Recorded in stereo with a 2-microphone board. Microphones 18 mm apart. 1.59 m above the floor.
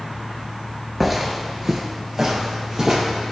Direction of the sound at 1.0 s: 10° right (ahead or behind).